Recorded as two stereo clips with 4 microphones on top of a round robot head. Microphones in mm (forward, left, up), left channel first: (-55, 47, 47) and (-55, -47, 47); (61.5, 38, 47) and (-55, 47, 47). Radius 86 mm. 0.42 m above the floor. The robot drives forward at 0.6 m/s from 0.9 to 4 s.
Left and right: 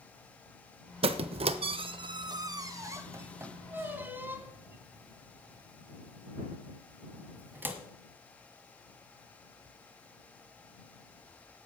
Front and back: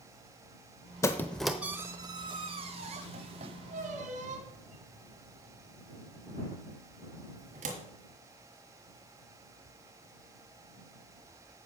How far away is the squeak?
About 0.7 m.